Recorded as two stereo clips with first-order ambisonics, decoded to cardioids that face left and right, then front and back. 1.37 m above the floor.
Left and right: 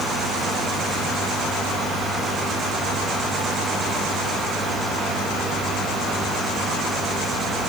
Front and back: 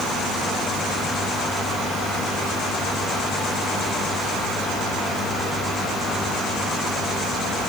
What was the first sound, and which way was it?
Only background noise.